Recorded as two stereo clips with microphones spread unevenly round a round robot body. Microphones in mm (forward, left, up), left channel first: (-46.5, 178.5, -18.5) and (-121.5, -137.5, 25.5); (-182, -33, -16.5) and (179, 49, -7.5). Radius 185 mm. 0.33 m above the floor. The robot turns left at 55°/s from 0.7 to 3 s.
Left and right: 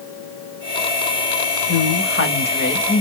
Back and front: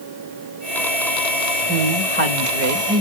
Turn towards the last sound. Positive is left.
turn(degrees=20)